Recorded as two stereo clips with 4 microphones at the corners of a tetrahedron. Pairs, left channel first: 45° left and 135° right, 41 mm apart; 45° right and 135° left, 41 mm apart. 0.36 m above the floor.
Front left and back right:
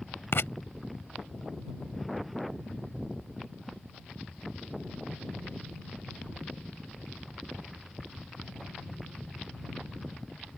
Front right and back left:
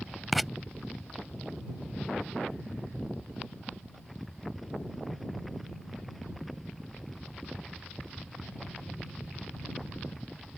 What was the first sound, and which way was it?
Writing, 50° left.